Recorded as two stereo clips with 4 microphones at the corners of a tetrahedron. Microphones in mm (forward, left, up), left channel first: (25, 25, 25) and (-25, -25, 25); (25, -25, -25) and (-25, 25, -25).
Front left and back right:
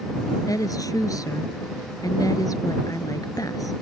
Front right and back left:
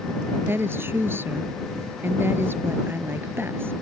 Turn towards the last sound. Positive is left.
turn(degrees=75)